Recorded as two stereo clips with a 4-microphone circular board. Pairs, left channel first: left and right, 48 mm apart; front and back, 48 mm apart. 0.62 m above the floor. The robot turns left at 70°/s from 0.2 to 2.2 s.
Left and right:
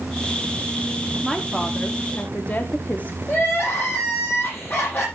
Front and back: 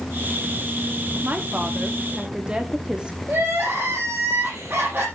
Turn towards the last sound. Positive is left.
turn(degrees=135)